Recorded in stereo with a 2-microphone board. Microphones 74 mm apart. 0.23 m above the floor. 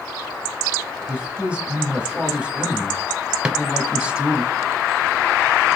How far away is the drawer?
About 0.9 m.